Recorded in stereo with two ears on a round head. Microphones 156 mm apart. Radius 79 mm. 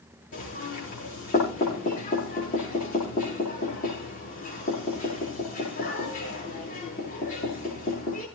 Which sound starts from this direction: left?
Knocking, at 0.3 s.